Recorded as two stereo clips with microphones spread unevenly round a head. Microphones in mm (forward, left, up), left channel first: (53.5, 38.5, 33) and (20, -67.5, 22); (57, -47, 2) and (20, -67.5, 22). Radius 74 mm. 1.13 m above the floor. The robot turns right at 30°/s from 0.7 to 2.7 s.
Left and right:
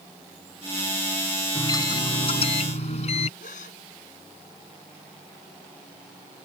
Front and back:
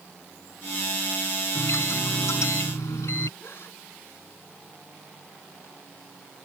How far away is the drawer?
No drawer in this recording.